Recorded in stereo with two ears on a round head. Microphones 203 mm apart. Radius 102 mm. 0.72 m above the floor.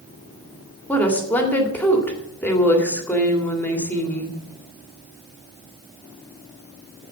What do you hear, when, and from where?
0.9 s a woman speaking: 10° left (ahead or behind), 2.0 m